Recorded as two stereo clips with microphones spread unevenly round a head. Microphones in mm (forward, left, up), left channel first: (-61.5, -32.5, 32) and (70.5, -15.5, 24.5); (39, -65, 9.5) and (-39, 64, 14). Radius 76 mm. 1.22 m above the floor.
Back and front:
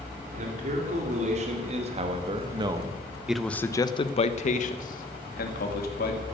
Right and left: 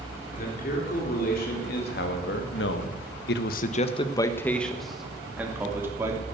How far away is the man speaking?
About 3.5 m.